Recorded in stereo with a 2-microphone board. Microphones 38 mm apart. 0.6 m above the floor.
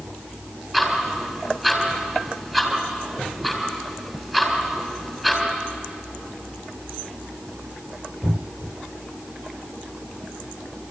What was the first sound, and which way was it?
Ticking, 10° right (ahead or behind).